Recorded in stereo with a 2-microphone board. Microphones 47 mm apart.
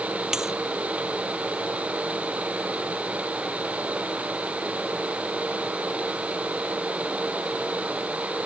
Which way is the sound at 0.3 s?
10° right (ahead or behind).